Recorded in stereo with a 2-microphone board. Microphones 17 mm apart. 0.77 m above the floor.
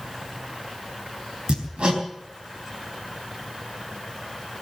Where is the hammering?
75° right (ahead or behind), 3.5 m.